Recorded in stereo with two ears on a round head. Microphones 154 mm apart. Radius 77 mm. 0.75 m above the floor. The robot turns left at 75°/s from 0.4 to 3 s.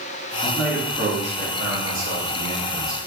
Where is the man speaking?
15° left, 1.1 m; by 3.0 s straight behind, 1.1 m.